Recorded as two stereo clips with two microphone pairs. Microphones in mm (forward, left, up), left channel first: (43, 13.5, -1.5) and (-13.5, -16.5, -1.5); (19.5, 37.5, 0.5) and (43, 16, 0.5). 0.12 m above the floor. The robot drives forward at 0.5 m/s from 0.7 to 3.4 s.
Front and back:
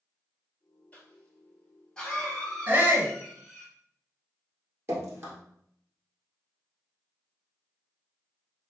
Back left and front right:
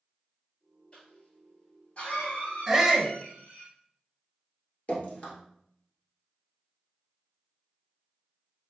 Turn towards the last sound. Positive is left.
turn(degrees=175)